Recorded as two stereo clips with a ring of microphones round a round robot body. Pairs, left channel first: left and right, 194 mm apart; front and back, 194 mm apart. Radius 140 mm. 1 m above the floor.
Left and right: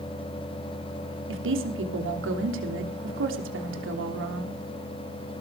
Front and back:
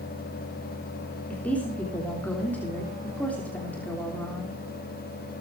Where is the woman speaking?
85° right, 3 m.